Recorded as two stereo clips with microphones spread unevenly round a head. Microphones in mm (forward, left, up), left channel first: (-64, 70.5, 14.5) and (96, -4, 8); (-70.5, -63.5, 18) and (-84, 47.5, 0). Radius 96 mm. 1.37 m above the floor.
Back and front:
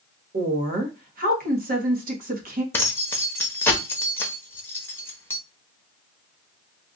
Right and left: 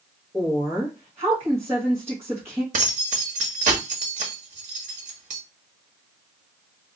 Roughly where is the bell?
No bell in this recording.